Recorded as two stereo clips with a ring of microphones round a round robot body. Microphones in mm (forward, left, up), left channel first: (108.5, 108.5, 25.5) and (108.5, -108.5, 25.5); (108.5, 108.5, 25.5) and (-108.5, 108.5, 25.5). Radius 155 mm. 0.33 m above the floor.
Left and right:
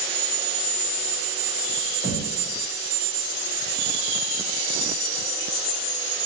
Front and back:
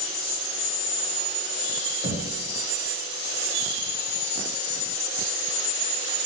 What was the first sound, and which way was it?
Knocking, 170° left.